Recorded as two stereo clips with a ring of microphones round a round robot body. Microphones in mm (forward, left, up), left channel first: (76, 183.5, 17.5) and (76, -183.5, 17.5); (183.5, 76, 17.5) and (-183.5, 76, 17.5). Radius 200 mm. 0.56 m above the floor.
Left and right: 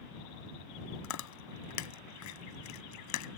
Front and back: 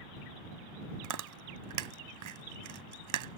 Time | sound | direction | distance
1.0 | chewing | 140° left | ?